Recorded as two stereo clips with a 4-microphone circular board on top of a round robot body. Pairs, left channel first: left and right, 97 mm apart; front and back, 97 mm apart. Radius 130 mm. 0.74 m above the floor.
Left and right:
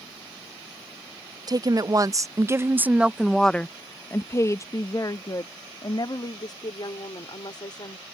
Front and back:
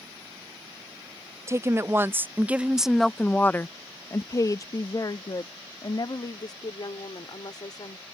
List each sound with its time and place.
1.5 s a woman speaking: 125° right; by 8.1 s 45° left